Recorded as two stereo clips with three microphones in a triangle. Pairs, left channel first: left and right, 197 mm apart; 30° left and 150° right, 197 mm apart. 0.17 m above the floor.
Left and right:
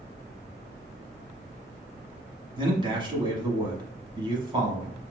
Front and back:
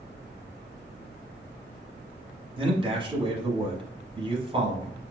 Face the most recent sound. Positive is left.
turn(degrees=-125)